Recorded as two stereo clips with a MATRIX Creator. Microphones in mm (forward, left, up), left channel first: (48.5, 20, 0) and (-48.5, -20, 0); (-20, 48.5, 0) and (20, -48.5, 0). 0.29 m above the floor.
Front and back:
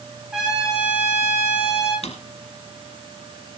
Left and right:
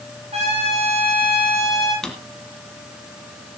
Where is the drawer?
30° left, 2.5 m.